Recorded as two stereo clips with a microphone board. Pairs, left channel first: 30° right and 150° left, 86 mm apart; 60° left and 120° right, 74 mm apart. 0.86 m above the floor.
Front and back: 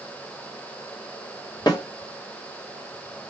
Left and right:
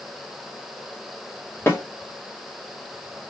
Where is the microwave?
I don't hear a microwave.